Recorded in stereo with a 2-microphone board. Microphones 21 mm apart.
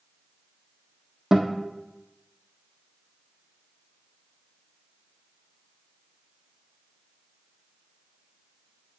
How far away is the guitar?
About 1.4 m.